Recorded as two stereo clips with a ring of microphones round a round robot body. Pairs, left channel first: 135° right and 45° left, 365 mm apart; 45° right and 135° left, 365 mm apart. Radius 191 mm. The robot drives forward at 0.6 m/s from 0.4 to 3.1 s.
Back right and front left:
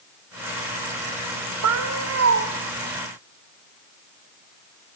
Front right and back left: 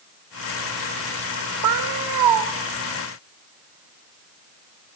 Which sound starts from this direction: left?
A cat meowing, at 1.6 s.